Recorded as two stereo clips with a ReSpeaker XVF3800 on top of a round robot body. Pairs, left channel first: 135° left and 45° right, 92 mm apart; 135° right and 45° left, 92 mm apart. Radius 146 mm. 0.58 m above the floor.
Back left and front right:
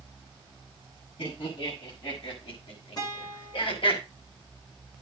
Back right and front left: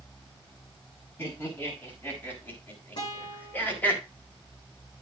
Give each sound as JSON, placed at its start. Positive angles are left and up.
{"t": 1.2, "sound": "laughter", "azimuth_deg": 160, "distance_m": 7.5}
{"t": 3.0, "sound": "a guitar", "azimuth_deg": 180, "distance_m": 8.5}